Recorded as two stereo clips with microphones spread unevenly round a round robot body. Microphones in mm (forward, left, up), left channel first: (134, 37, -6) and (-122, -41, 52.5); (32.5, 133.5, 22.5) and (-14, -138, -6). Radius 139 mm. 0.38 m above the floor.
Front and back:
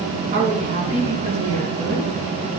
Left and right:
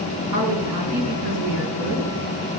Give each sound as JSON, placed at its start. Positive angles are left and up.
{"t": 0.3, "sound": "a woman speaking", "azimuth_deg": -105, "distance_m": 5.0}